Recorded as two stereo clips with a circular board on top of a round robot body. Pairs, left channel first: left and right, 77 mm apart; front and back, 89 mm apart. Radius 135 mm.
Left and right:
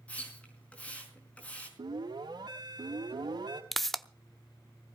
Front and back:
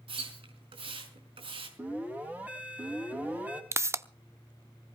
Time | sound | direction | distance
0.1 | a splash | 165° left | 5 m
1.8 | an alarm | 105° right | 4.5 m
3.7 | a pop | 175° left | 1.0 m